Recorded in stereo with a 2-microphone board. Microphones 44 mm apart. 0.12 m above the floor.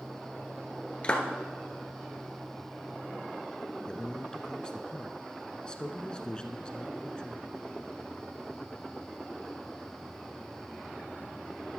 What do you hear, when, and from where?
1.0 s a clap: 25° left (ahead or behind), 1.6 m
3.9 s a man speaking: 20° left (ahead or behind), 1.1 m